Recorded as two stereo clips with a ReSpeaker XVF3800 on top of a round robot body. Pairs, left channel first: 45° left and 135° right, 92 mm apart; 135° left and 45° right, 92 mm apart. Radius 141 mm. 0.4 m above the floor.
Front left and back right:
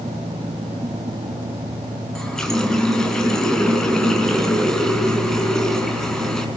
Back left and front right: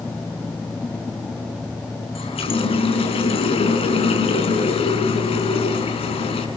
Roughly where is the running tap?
Behind left.